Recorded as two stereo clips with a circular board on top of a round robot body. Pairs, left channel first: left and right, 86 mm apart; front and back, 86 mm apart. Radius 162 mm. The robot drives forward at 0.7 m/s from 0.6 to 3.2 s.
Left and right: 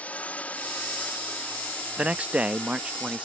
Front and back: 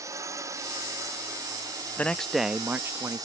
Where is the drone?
155° left; by 3.2 s 160° left.